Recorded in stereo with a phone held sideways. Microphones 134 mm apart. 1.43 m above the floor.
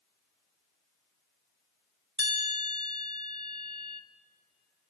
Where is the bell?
35° right (ahead or behind), 1.6 m.